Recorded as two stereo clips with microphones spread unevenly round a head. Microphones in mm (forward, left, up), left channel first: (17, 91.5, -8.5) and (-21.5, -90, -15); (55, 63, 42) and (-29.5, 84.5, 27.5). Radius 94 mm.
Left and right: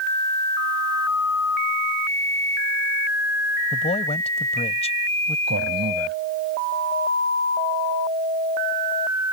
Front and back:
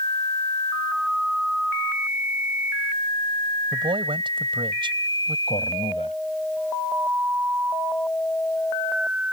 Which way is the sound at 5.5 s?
65° right.